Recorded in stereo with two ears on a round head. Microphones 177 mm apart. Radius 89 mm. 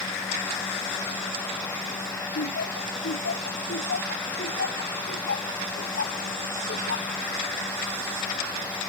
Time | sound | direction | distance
2.4 | laughter | 60° left (ahead or behind) | ?